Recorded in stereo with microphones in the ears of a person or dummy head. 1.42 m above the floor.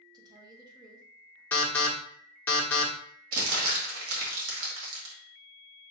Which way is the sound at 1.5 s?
10° left (ahead or behind).